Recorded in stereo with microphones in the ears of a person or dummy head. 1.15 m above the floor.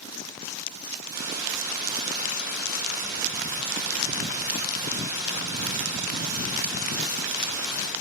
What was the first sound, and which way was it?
A hiss, 20° right (ahead or behind).